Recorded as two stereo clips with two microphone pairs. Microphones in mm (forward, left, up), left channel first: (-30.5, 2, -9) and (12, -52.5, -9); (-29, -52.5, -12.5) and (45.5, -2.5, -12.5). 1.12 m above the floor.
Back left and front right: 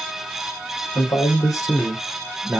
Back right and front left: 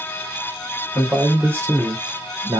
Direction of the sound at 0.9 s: 115° left.